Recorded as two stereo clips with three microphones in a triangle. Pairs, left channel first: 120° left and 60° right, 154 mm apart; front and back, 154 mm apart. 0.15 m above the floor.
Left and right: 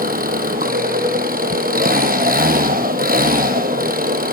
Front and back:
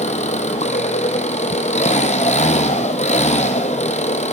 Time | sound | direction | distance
0.0 | an engine running | 40° right | 2 m